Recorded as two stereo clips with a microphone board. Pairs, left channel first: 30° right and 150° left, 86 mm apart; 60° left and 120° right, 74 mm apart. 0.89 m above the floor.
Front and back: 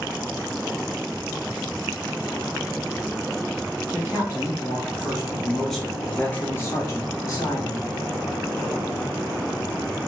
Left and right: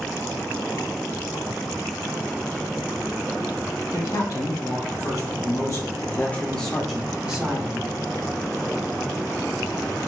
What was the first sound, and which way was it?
A man speaking, 80° left.